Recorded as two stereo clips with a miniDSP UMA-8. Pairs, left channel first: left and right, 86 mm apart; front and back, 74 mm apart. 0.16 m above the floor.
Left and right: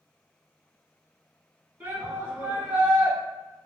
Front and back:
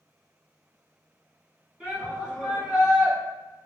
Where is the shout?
120° right, 1.8 m.